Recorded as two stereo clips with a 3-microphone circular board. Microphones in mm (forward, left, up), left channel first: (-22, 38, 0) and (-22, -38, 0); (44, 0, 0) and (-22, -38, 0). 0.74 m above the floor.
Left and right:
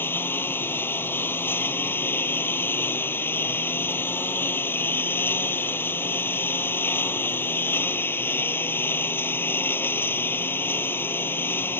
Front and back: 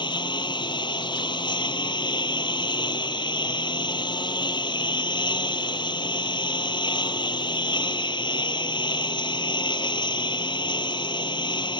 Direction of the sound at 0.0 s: 25° left.